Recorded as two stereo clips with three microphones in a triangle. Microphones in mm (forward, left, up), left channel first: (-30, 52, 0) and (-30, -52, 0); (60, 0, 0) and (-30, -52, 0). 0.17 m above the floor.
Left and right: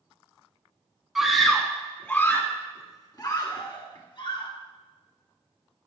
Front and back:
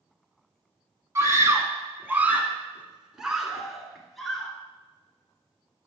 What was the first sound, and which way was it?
A scream, 175° right.